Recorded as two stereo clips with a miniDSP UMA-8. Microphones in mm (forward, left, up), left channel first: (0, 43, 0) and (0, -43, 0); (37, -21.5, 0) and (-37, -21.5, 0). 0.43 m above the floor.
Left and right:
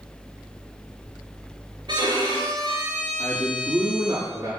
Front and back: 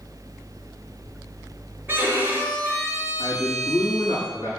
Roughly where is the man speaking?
Behind right.